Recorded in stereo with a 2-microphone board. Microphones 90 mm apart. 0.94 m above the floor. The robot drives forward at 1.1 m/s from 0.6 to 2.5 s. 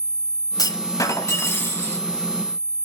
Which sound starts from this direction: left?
A clunk, at 0.6 s.